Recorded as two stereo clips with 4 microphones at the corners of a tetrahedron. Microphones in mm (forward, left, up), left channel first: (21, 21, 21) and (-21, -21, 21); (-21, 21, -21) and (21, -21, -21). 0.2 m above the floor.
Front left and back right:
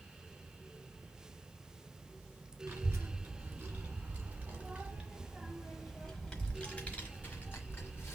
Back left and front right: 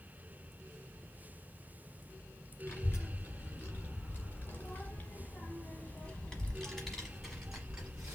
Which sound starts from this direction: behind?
A child speaking, at 2.7 s.